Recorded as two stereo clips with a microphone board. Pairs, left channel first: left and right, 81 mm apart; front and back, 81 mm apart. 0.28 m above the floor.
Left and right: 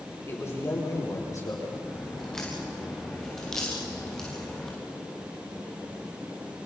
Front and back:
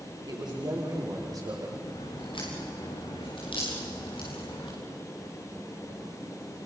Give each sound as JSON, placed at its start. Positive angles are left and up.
{"t": 0.2, "sound": "a man speaking", "azimuth_deg": 150, "distance_m": 7.5}
{"t": 1.9, "sound": "a crack", "azimuth_deg": 5, "distance_m": 8.0}